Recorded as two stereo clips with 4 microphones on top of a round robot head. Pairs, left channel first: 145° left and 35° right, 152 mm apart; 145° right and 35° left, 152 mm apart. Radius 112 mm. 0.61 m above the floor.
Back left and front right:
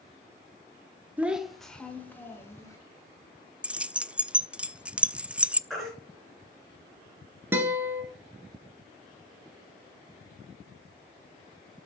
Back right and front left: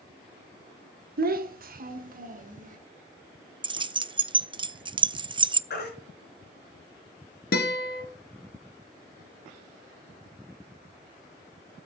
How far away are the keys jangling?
About 0.5 m.